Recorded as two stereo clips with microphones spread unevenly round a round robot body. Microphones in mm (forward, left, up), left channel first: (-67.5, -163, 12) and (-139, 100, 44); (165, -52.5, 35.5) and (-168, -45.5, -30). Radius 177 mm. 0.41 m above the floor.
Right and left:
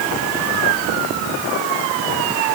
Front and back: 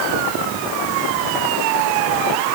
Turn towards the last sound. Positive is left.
No sound to turn to.